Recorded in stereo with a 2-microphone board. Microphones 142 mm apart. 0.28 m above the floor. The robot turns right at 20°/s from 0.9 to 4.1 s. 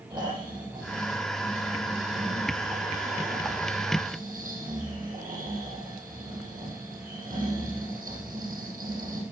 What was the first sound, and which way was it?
Snoring, 155° right.